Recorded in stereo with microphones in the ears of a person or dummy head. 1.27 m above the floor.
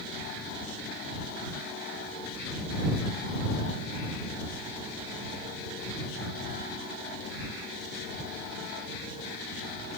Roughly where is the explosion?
No explosion in this recording.